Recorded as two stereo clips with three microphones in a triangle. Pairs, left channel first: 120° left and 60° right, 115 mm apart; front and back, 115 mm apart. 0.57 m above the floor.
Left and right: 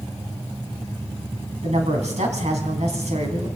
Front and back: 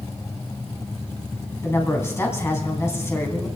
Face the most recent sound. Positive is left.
turn(degrees=-65)